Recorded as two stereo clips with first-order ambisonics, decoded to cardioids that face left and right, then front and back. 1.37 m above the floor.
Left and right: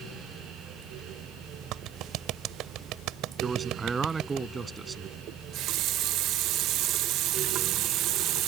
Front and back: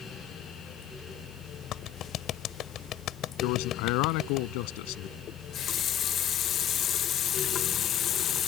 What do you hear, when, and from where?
1.7 s a clap: 50° right
3.4 s a man speaking: 15° right
5.3 s a running tap: 55° right